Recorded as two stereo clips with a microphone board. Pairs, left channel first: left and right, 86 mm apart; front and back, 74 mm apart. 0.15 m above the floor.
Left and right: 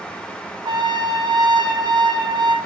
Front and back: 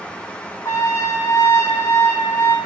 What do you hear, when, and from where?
0.7 s a trumpet: 55° right, 1.0 m